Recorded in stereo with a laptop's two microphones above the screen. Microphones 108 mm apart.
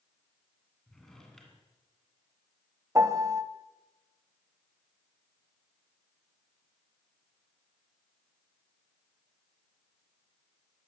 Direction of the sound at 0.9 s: 5° left (ahead or behind).